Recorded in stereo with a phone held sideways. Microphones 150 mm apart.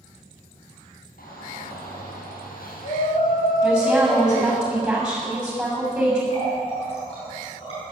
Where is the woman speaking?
5° right (ahead or behind), 7 m.